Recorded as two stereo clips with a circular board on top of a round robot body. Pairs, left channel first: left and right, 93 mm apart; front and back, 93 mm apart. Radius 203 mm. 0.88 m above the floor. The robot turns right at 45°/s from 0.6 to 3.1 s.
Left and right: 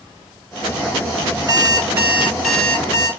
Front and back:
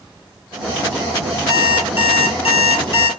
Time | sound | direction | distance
1.5 | an alarm clock | 40° right | 2 m